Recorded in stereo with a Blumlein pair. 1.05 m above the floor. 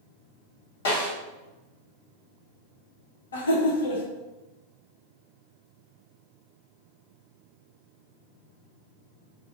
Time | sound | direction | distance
0.8 | a snare drum | 60° left | 1.3 m
3.3 | laughter | 65° left | 0.8 m